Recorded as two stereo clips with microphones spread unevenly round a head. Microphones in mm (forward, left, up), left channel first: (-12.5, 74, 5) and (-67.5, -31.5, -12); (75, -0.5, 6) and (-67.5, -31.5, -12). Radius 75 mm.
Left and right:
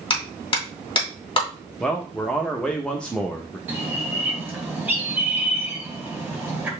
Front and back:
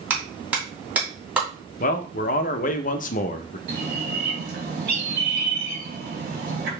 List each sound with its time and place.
0.1 s a clap: 110° left, 2 m
1.8 s a man speaking: 25° right, 0.8 m
3.7 s a bird: 165° left, 2.5 m